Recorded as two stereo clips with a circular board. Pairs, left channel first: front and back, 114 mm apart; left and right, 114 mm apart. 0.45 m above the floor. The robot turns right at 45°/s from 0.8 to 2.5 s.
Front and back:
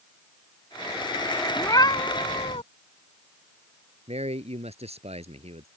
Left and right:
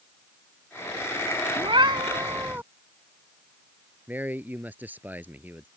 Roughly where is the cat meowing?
Ahead right.